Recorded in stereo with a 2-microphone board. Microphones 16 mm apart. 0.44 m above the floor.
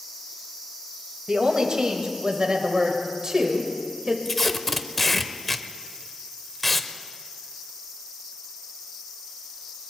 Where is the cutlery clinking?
No cutlery clinking in this recording.